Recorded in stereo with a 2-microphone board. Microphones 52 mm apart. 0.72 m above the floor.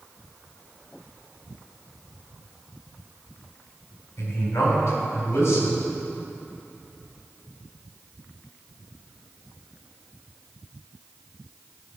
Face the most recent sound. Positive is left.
turn(degrees=55)  # may be behind; listen again after turning